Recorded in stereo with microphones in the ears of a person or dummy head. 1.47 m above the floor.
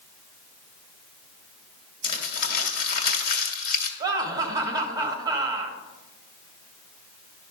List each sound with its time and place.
2.0 s crumpling: 60° left (ahead or behind), 1.9 m
4.0 s laughter: 20° right (ahead or behind), 1.3 m